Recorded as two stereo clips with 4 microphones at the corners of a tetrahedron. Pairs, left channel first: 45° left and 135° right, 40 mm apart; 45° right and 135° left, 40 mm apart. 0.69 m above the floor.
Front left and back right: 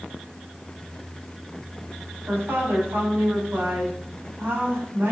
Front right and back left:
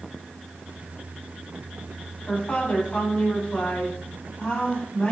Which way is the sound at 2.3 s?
105° right.